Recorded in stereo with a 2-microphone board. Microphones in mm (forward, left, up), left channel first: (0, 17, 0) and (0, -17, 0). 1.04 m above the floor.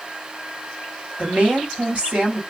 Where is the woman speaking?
45° right (ahead or behind), 1.6 m.